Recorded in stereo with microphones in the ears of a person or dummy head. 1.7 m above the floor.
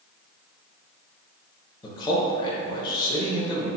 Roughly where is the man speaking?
Left.